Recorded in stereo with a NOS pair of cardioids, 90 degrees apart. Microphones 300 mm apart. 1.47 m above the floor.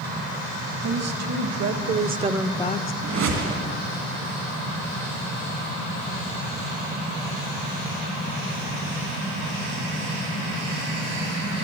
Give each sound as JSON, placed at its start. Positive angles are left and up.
{"t": 0.8, "sound": "a woman speaking", "azimuth_deg": -60, "distance_m": 1.6}
{"t": 3.0, "sound": "a whoosh", "azimuth_deg": -65, "distance_m": 2.0}